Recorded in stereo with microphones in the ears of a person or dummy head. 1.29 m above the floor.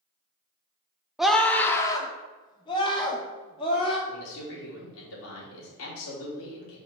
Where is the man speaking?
70° left (ahead or behind), 3 m.